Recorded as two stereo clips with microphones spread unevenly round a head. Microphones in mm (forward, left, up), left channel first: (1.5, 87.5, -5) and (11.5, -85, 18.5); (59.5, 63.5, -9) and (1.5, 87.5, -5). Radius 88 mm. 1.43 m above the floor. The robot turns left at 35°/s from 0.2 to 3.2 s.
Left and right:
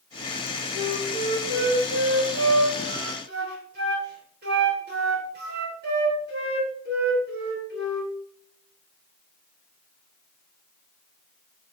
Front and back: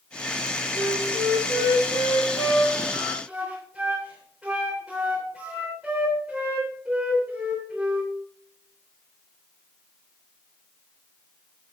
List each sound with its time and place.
0.7 s a flute: 30° right, 3 m; by 8.1 s 115° right, 3 m